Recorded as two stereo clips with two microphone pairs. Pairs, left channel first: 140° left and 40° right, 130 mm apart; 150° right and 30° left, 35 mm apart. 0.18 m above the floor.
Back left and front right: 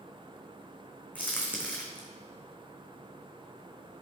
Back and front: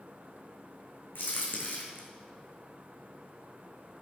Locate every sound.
1.1 s a crack: 145° right, 2.5 m